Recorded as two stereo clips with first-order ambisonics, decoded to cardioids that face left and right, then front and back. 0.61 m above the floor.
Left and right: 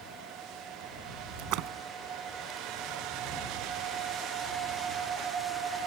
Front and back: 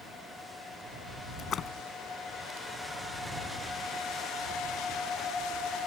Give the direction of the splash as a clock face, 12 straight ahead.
2 o'clock.